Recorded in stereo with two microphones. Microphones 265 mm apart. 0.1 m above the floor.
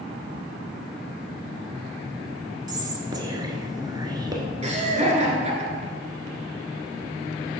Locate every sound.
2.7 s whispering: 15° right (ahead or behind), 1.1 m
4.6 s laughter: 25° right (ahead or behind), 1.5 m